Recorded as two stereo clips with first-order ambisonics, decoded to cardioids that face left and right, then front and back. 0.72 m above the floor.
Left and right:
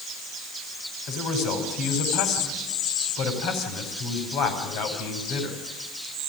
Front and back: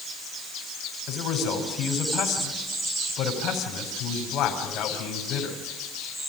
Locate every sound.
1.1 s a man speaking: 55° left, 4.5 m